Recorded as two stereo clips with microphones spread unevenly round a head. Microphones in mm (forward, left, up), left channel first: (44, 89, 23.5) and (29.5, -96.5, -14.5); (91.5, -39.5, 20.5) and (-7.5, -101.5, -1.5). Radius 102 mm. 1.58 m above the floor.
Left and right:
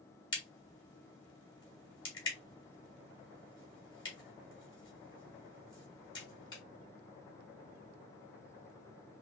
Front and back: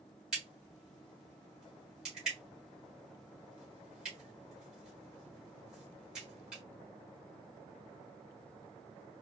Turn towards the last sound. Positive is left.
turn(degrees=115)